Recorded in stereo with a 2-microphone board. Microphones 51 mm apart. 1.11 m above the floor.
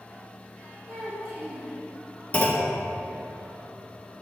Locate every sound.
0.9 s a child speaking: 30° right (ahead or behind), 1.6 m
2.3 s a clunk: 30° left (ahead or behind), 0.9 m